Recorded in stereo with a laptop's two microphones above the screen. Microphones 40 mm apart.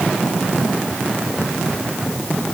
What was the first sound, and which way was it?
Only background noise.